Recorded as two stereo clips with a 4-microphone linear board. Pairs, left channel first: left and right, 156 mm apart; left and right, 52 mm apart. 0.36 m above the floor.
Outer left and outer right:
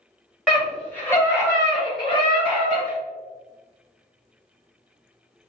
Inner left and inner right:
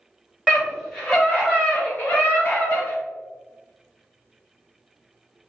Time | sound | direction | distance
0.5 | a scream | centre (ahead or behind) | 1.7 m